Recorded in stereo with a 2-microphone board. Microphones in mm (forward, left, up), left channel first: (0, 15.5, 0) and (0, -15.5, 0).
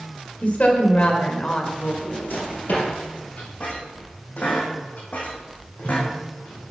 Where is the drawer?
65° left (ahead or behind), 4 m.